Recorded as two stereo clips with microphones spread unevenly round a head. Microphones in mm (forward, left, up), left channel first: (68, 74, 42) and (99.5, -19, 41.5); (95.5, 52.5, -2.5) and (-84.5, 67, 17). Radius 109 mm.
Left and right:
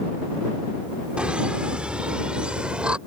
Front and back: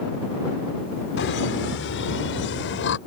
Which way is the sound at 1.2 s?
10° left.